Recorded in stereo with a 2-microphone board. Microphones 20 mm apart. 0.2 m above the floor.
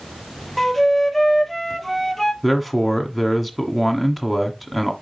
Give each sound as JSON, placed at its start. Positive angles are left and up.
{"t": 0.6, "sound": "a flute", "side_deg": 10, "distance_m": 0.8}
{"t": 2.4, "sound": "a man speaking", "side_deg": -5, "distance_m": 1.5}